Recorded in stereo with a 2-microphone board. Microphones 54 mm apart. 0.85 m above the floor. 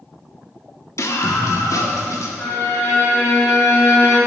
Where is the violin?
85° left, 4 m.